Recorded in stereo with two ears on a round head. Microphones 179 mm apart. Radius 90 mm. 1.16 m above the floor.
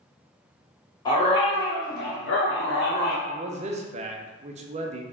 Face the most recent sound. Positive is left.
turn(degrees=-35)  # may be behind; listen again after turning